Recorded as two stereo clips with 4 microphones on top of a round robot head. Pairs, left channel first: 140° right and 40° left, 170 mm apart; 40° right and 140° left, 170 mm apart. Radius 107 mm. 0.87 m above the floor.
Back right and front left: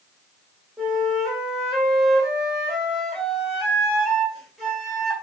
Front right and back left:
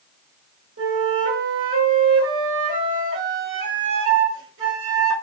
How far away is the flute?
About 1.5 m.